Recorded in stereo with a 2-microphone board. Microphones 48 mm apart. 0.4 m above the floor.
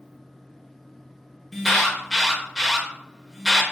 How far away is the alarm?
About 0.8 m.